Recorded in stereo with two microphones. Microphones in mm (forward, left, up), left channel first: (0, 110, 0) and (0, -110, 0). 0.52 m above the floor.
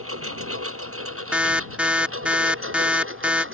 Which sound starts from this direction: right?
A lawn mower, at 0.0 s.